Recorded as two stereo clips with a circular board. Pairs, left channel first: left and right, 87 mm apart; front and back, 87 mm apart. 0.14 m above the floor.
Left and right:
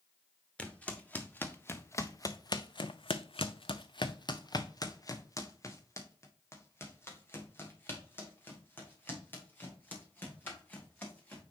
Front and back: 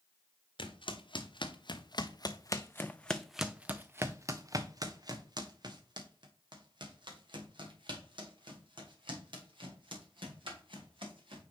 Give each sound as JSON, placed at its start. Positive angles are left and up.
{"t": 0.6, "sound": "footsteps", "azimuth_deg": 15, "distance_m": 1.4}